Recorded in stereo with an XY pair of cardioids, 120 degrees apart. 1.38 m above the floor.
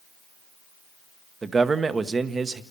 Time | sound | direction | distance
1.4 | a man speaking | 30° right | 1.2 m